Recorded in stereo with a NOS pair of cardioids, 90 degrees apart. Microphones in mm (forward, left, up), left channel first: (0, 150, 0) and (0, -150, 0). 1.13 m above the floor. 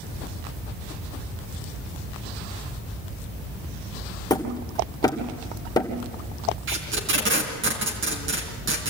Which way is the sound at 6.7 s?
40° right.